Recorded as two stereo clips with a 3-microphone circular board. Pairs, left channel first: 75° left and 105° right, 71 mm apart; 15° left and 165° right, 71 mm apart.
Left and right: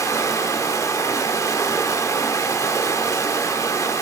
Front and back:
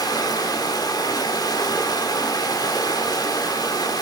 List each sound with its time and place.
0.0 s running water: 35° left, 1.8 m